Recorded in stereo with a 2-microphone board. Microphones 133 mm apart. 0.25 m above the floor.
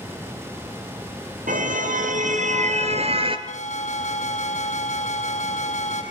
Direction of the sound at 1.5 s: 80° right.